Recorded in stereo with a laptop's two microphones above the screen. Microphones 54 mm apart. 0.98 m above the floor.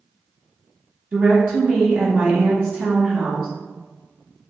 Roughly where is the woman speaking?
Right.